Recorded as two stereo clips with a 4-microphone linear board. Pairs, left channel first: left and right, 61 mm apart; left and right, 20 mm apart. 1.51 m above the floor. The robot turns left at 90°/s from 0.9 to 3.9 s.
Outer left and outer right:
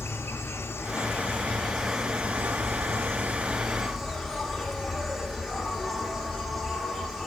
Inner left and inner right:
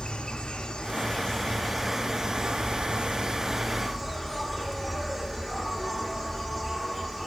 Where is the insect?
90° left, 1.1 m; by 7.3 s straight behind, 1.1 m.